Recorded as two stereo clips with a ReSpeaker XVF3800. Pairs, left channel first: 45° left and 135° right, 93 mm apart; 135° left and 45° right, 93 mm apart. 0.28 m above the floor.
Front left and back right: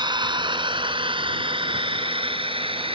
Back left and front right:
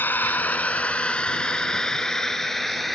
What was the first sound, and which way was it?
A drone, 160° right.